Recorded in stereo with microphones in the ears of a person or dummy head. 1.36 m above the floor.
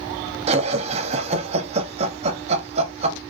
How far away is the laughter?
About 0.7 m.